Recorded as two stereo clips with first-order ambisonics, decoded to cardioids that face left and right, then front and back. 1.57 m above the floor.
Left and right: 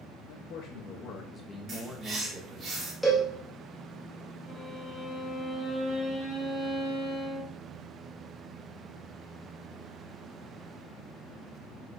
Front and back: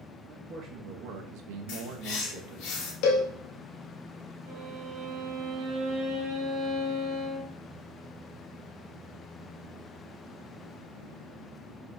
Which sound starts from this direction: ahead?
A cowbell, at 3.0 s.